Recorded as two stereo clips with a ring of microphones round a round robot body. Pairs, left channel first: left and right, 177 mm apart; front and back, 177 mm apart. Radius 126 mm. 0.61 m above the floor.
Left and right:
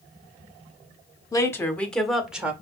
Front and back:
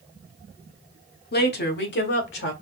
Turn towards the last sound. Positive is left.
turn(degrees=-5)